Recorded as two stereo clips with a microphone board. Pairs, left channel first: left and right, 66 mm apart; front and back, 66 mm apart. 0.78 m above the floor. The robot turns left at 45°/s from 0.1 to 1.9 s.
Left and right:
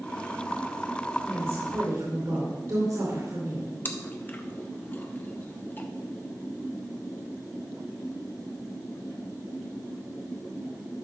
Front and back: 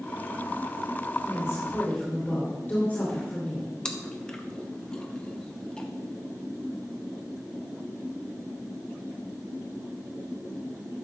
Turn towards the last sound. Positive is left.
turn(degrees=65)